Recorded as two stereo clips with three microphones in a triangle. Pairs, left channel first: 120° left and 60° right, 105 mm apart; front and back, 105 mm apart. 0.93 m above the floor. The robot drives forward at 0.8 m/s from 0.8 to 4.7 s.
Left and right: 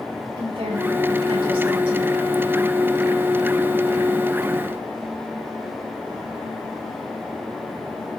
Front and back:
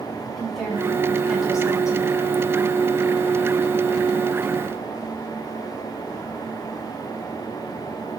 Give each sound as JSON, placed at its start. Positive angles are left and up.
{"t": 0.4, "sound": "a woman speaking", "azimuth_deg": -90, "distance_m": 6.0}